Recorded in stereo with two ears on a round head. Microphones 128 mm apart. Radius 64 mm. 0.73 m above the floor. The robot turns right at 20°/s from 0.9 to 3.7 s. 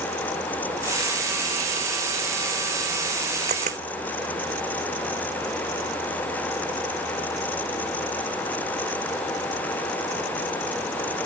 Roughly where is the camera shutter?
Right.